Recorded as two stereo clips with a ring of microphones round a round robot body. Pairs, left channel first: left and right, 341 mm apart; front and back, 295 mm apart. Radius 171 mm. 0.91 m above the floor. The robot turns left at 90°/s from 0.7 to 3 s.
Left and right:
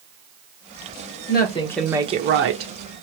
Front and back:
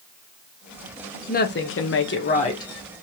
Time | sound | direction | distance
1.3 | a woman speaking | 50° left | 0.9 m